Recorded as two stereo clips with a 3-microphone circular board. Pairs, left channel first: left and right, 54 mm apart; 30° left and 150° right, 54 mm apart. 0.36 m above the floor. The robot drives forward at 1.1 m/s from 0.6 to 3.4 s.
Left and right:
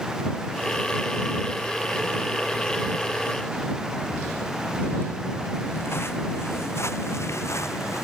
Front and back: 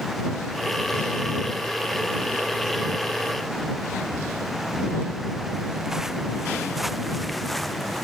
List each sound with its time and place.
4.0 s footsteps: 140° left; by 8.0 s 115° left